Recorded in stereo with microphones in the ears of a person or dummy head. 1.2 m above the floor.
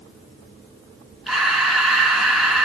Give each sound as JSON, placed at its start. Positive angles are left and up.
{"t": 1.3, "sound": "breathing", "side_deg": 0, "distance_m": 2.5}